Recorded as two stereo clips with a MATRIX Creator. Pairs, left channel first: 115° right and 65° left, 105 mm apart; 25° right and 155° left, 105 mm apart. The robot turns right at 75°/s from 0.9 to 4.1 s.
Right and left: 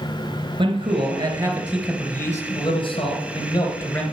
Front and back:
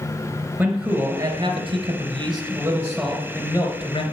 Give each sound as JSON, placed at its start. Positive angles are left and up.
{"t": 0.6, "sound": "a man speaking", "azimuth_deg": 90, "distance_m": 3.0}